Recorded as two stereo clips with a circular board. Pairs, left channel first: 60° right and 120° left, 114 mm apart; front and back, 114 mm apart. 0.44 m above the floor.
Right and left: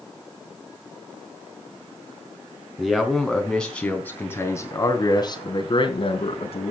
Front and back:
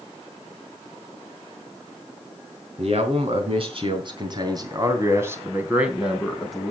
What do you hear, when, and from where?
2.8 s a man speaking: 155° right, 3.5 m; by 6.7 s 85° right, 3 m